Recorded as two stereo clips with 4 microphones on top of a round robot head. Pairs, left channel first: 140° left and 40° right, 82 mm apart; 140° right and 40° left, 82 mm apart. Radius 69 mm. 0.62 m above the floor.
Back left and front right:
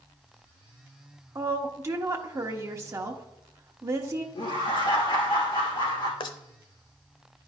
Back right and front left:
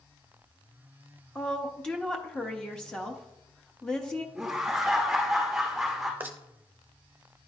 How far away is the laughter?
About 1.9 m.